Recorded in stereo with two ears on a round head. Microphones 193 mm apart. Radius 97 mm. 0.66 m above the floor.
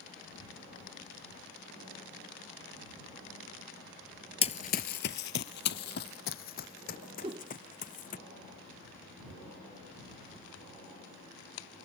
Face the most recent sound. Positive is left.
turn(degrees=-25)  # may be behind; listen again after turning